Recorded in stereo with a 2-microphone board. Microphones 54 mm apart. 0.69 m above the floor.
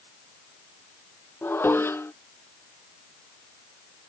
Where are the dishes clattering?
45° left (ahead or behind).